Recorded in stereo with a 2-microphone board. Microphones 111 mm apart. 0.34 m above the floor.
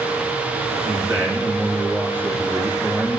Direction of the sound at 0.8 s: 20° right (ahead or behind).